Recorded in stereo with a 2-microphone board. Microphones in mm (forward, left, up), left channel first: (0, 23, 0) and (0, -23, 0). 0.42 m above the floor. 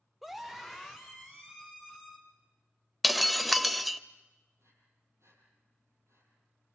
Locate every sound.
0.2 s a scream: centre (ahead or behind), 0.7 m
3.0 s breaking glass: centre (ahead or behind), 0.6 m
4.6 s breathing: 85° right, 7.5 m